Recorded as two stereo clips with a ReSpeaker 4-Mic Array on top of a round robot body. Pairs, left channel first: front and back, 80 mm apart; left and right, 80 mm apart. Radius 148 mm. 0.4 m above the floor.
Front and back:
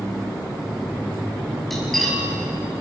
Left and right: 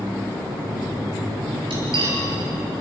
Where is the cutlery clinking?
90° right, 7 m.